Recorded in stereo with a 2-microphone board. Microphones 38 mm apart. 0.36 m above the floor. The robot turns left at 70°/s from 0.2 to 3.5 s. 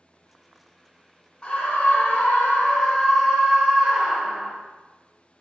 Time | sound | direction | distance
1.4 | a scream | 130° left | 1.0 m